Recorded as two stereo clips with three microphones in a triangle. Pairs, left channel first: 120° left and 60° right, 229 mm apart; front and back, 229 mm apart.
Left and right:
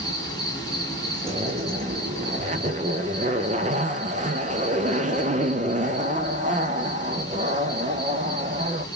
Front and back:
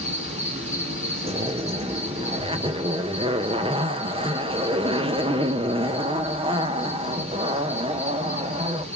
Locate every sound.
0.0 s an insect: 175° left, 2 m
1.2 s a zipper: 115° right, 0.5 m